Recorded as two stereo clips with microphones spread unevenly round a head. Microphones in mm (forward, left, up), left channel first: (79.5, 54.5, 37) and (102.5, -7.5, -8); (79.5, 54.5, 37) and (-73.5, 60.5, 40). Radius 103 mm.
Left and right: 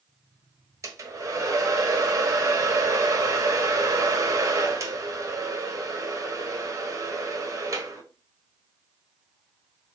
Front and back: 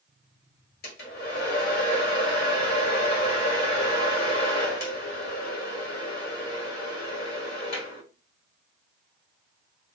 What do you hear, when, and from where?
0.8 s a hair dryer: 5° right, 1.5 m